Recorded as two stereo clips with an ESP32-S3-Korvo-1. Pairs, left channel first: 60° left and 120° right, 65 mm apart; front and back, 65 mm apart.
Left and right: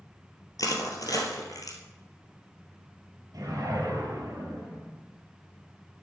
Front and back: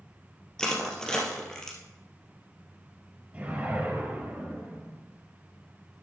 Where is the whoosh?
120° right, 3 m.